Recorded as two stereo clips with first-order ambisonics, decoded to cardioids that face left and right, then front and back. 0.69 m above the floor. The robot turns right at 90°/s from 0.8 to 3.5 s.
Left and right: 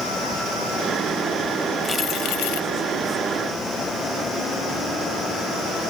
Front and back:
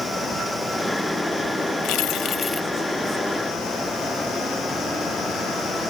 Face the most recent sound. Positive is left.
turn(degrees=165)